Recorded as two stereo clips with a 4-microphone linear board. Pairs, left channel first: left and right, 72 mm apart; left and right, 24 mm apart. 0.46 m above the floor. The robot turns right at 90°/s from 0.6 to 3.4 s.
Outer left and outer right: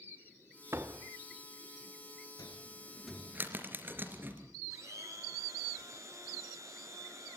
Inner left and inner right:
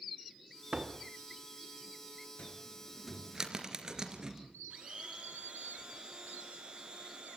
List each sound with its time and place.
0.7 s a door slam: 55° right, 0.9 m; by 1.1 s 20° right, 0.9 m
2.4 s a cupboard door: 60° left (ahead or behind), 3 m; by 4.5 s 30° right (ahead or behind), 3 m
4.7 s a blender: 45° right (ahead or behind), 6.5 m